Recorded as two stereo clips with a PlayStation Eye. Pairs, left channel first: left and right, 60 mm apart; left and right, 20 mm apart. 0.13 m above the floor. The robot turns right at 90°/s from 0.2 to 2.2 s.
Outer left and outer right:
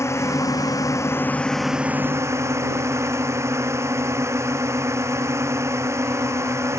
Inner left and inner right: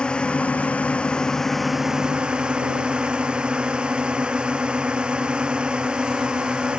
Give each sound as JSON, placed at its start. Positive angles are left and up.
{"t": 0.0, "sound": "a drone", "azimuth_deg": 50}